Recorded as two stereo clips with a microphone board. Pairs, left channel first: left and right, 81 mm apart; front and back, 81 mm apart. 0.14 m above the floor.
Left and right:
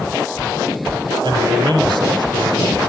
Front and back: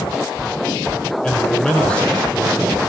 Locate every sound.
1.2 s a man speaking: 75° right, 5 m